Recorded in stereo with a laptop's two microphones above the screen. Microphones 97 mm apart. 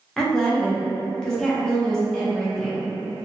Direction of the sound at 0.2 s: 5° left (ahead or behind).